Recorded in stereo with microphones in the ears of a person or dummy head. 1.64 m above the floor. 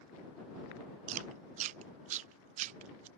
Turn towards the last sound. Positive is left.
turn(degrees=-45)  # may be behind; listen again after turning